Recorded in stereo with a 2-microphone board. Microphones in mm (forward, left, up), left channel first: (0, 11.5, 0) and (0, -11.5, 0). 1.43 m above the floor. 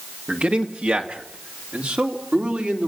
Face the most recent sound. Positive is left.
turn(degrees=-80)